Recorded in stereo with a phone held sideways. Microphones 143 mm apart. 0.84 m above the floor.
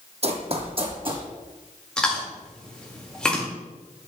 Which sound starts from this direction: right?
Running footsteps, at 0.2 s.